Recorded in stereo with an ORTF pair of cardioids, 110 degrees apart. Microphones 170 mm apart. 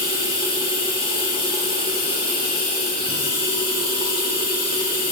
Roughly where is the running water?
Ahead left.